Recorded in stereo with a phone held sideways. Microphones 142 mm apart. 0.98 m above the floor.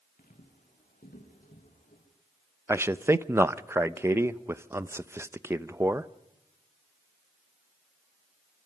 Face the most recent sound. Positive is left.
turn(degrees=-20)  # may be behind; listen again after turning